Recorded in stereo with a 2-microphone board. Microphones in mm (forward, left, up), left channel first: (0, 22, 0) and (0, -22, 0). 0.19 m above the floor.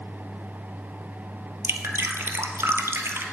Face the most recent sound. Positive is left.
turn(degrees=-70)  # may be behind; listen again after turning